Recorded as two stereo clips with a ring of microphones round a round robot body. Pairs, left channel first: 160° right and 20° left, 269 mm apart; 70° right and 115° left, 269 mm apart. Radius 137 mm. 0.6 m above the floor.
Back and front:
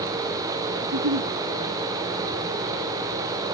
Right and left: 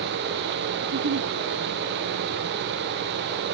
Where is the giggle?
70° left, 4.5 m.